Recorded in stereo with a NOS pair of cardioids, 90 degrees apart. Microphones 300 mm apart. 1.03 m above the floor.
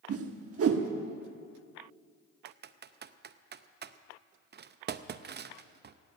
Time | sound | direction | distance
0.1 | a whoosh | 50° right | 1.2 m
2.5 | typing on a keyboard | 35° right | 0.6 m